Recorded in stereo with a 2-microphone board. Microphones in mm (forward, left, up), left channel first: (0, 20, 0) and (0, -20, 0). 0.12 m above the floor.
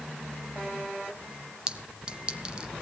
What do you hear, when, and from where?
1.7 s a clink: 20° right (ahead or behind), 0.9 m